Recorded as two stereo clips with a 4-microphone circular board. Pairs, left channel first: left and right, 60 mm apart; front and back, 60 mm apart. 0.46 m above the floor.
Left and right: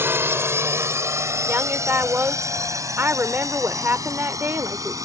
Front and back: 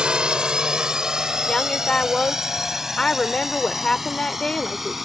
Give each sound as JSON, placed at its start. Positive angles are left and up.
{"t": 0.0, "sound": "a drone", "azimuth_deg": -110}
{"t": 1.5, "sound": "a woman speaking", "azimuth_deg": -70}